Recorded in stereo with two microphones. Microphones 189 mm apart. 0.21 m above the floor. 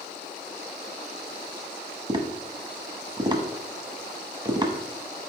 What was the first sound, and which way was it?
Tapping, 25° right (ahead or behind).